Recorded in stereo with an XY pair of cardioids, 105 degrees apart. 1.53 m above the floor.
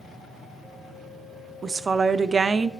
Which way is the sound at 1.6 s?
35° right.